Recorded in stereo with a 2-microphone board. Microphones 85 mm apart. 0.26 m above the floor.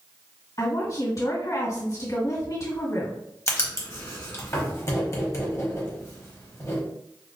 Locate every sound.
0.6 s a woman speaking: 45° left (ahead or behind), 2.0 m
3.5 s writing: 35° left (ahead or behind), 1.0 m